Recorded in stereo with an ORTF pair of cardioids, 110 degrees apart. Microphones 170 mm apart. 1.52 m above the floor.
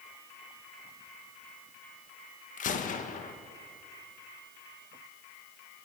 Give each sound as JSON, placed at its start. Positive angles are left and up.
{"t": 2.6, "sound": "a gunshot", "azimuth_deg": 50, "distance_m": 1.9}